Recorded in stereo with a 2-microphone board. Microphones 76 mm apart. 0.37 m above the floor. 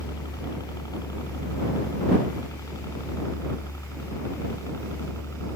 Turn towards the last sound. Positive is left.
turn(degrees=40)  # may be behind; listen again after turning